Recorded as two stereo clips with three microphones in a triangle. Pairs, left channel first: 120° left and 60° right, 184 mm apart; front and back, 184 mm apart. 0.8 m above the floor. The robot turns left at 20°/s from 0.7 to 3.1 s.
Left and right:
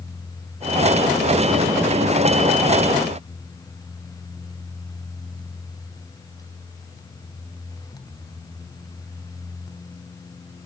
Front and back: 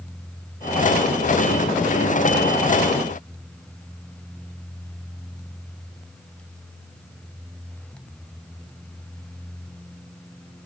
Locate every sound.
Only background noise.